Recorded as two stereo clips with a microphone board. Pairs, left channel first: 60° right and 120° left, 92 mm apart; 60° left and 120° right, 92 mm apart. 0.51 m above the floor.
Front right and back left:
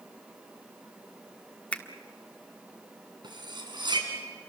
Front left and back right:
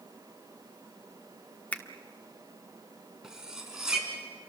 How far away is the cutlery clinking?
About 3.5 m.